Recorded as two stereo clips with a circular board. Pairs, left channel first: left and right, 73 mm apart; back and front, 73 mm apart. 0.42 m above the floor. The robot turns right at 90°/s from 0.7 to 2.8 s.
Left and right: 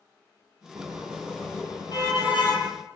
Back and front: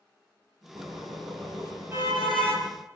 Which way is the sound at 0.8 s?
45° right.